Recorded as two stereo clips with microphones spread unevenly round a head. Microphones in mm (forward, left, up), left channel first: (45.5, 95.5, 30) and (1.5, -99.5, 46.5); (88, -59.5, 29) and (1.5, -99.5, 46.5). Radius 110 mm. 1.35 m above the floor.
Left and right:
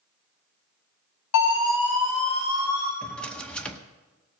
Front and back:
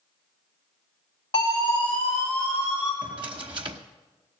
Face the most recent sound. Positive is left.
turn(degrees=165)